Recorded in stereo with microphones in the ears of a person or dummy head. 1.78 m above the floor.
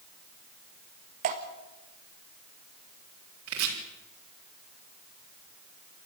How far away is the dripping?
About 1.7 m.